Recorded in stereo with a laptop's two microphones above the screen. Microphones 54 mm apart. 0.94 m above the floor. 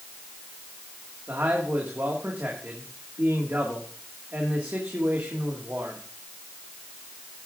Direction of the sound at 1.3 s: 40° right (ahead or behind).